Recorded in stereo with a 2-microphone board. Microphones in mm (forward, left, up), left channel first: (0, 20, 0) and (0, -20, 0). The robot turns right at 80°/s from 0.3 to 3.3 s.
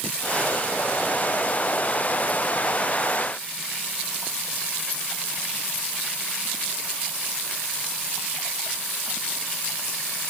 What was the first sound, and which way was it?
Only background noise.